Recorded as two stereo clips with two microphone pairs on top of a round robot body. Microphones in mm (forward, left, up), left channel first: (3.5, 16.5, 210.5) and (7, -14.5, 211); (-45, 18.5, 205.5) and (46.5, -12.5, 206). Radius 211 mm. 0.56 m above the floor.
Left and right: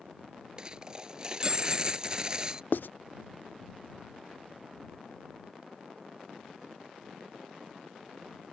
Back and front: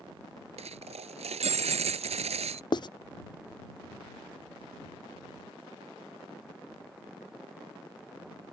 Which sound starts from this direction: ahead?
A dropped coin, at 0.6 s.